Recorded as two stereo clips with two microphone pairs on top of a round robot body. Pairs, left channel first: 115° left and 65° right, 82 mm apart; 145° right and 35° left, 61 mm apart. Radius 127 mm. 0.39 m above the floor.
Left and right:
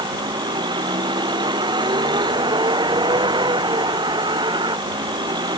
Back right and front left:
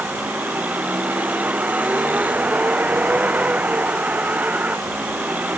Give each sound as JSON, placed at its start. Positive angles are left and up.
{"t": 0.0, "sound": "a vehicle", "azimuth_deg": -30}